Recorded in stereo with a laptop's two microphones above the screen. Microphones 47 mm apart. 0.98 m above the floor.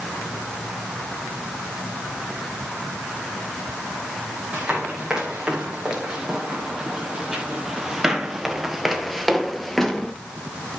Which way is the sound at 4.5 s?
15° right (ahead or behind).